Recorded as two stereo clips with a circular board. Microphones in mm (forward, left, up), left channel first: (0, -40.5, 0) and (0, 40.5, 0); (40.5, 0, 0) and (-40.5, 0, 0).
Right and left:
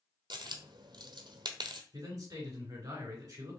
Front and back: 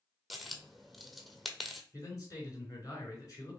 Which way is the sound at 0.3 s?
90° left.